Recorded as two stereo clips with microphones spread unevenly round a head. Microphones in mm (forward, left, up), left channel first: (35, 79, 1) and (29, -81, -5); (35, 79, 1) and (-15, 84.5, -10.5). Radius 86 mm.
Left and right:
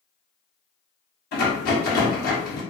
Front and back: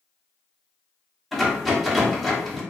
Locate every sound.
1.3 s a rattle: 75° left, 0.9 m